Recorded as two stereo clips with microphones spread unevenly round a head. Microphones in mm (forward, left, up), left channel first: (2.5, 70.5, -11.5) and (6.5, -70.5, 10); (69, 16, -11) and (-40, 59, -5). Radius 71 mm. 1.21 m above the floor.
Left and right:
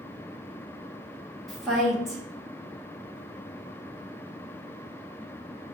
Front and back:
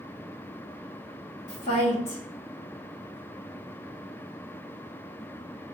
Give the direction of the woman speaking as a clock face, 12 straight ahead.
12 o'clock.